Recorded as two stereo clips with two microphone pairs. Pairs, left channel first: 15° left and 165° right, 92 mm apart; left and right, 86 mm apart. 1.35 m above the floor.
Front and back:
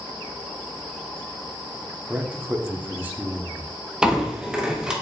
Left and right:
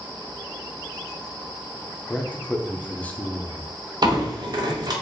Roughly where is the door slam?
Right.